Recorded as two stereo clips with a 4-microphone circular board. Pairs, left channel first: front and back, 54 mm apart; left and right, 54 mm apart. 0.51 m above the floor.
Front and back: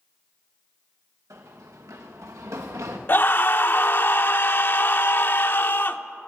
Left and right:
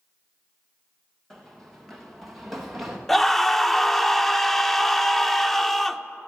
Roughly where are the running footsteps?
Behind.